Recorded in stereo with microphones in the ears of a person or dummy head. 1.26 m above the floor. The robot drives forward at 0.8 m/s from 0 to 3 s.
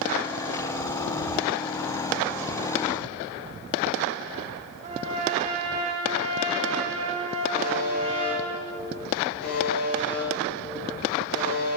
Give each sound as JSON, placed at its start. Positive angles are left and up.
{"t": 4.8, "sound": "a trumpet", "side_deg": -40, "distance_m": 3.0}
{"t": 7.5, "sound": "a buzzer", "side_deg": 55, "distance_m": 3.5}